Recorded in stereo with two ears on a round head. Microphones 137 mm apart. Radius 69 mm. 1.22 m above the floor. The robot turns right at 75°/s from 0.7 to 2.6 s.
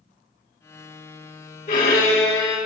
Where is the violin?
80° left, 1.2 m; by 2.6 s 145° left, 1.2 m.